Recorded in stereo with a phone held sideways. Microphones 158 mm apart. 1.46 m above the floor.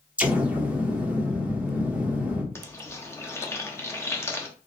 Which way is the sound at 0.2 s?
10° right (ahead or behind).